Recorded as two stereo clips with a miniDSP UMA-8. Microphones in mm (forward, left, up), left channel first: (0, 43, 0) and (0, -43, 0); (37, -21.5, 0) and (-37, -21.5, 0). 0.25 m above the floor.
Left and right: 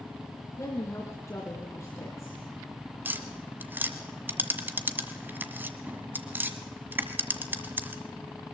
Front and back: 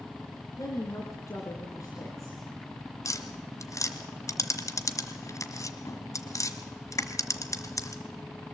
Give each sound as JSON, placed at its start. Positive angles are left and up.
{"t": 0.6, "sound": "a woman speaking", "azimuth_deg": 40, "distance_m": 3.0}
{"t": 3.0, "sound": "tapping", "azimuth_deg": -30, "distance_m": 1.3}